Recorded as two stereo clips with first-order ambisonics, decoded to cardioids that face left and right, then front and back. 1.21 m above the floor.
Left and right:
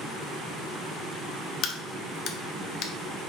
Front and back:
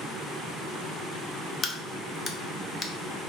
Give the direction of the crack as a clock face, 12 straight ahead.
10 o'clock.